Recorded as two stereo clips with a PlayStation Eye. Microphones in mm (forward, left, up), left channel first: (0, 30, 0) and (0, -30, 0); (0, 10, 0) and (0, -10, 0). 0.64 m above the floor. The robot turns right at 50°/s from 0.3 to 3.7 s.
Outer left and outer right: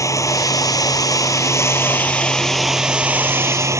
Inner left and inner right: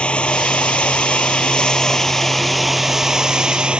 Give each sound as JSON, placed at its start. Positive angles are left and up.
{"t": 0.0, "sound": "running water", "azimuth_deg": 65}